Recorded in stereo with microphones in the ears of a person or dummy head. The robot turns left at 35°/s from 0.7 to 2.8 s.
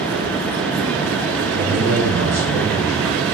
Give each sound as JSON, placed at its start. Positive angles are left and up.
{"t": 1.5, "sound": "a man speaking", "azimuth_deg": -110, "distance_m": 1.5}